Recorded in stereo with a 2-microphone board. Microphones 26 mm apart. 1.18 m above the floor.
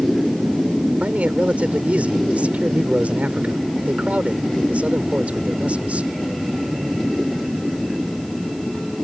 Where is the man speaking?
75° right (ahead or behind).